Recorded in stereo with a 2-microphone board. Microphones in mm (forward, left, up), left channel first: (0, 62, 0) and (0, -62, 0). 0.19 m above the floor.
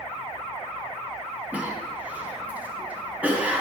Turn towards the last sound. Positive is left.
turn(degrees=-10)  # may be behind; listen again after turning